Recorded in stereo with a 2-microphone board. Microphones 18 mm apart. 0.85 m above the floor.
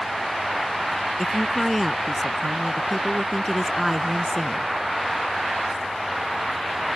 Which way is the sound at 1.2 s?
10° left (ahead or behind).